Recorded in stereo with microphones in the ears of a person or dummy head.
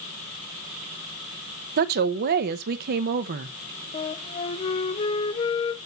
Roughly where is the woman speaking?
Right.